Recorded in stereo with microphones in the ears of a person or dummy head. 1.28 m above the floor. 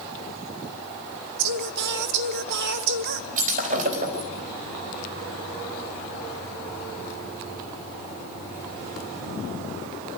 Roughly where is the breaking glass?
Right.